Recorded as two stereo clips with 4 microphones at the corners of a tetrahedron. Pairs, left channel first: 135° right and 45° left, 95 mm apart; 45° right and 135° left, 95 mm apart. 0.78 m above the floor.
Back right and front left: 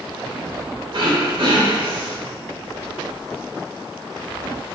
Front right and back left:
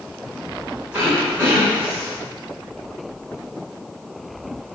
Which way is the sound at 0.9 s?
65° left.